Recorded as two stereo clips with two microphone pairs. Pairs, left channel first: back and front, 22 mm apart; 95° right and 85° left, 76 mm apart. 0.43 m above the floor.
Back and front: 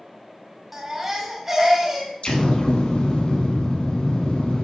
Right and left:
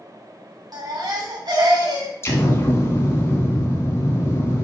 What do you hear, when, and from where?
0.7 s a baby crying: 70° left, 1.8 m
2.2 s an explosion: 145° right, 1.2 m